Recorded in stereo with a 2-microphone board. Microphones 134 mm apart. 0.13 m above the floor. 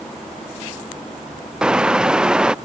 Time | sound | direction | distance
1.6 | a car horn | 5° right (ahead or behind) | ?